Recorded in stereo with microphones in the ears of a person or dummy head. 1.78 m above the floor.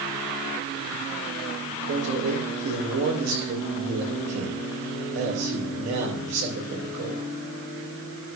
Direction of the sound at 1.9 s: 90° right.